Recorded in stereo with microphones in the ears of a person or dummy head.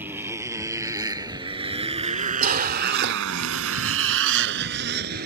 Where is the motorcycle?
10° right (ahead or behind); by 5.3 s 50° right (ahead or behind).